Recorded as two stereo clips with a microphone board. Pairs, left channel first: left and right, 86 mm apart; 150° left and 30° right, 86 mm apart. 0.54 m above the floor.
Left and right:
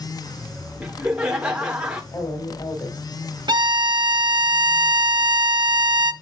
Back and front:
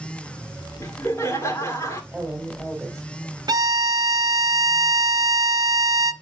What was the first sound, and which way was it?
Laughter, 170° right.